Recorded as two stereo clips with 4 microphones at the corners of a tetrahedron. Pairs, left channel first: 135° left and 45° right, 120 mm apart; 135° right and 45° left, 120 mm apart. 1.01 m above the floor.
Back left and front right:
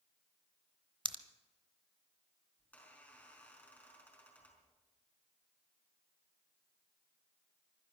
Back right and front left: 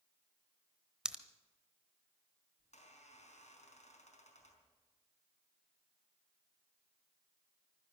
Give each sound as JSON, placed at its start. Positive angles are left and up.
{"t": 1.1, "sound": "a pop", "azimuth_deg": -35, "distance_m": 0.9}
{"t": 2.6, "sound": "a squeak", "azimuth_deg": -150, "distance_m": 4.5}